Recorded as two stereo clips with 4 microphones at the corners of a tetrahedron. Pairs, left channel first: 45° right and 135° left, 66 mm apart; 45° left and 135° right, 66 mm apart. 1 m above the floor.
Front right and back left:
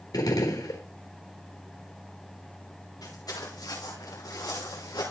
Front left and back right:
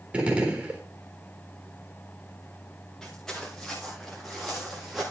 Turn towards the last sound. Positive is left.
turn(degrees=-45)